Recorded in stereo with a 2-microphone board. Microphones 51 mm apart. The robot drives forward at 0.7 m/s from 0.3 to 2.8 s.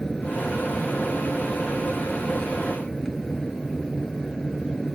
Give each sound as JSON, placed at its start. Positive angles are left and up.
{"t": 0.0, "sound": "an aircraft", "side_deg": 10}